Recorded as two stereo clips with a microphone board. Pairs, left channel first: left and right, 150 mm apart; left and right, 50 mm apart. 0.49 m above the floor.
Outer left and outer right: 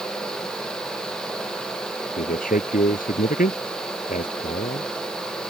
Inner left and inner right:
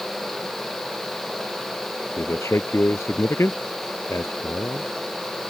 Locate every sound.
2.2 s a man speaking: 65° left (ahead or behind)